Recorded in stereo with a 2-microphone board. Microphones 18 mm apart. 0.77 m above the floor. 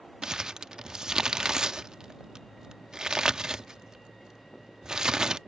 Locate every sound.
0.2 s crumpling: 45° right (ahead or behind)